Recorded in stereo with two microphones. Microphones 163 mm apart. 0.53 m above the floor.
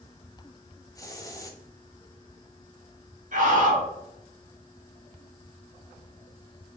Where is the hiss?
20° left (ahead or behind), 0.7 m.